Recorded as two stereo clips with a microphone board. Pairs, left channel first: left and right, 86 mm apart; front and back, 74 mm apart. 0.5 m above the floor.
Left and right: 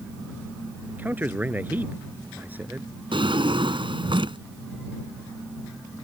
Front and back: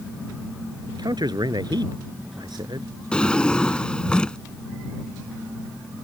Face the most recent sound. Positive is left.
turn(degrees=-75)